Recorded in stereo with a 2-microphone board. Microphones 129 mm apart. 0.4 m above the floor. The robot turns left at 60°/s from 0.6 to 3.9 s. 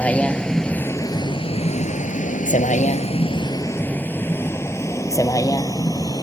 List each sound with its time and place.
0.0 s a vehicle: 10° left (ahead or behind); by 6.2 s 30° left (ahead or behind)